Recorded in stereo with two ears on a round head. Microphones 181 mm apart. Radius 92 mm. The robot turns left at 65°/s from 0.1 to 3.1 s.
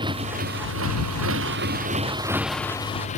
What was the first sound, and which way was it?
A motorcycle, 25° right.